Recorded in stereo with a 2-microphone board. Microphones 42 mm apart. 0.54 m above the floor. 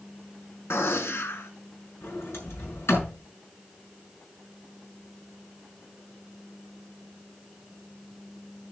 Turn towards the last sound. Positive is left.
turn(degrees=75)  # may be behind; listen again after turning